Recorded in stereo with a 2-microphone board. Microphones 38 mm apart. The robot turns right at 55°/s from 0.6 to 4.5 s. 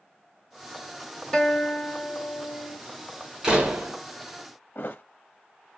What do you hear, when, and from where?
1.3 s a guitar: 20° left, 1.4 m; by 2.8 s 100° left, 1.4 m
3.4 s a door slam: 15° right (ahead or behind), 1.1 m; by 4.0 s 45° right (ahead or behind), 1.1 m
4.8 s a thud: 60° left (ahead or behind), 0.5 m